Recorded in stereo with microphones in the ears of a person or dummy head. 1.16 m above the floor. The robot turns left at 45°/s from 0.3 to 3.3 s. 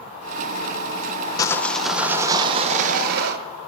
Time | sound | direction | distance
1.4 | sawing | 15° left | 0.6 m